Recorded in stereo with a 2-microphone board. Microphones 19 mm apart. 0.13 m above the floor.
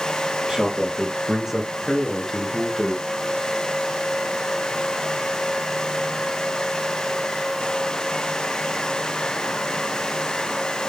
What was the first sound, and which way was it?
A man speaking, 45° right (ahead or behind).